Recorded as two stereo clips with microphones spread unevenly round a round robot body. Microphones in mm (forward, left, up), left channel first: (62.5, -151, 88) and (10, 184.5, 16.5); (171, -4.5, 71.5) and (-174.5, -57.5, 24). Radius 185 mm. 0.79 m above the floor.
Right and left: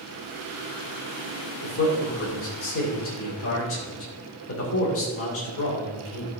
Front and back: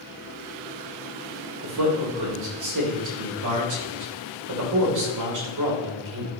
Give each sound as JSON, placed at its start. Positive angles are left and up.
{"t": 1.6, "sound": "a man speaking", "azimuth_deg": -140, "distance_m": 3.0}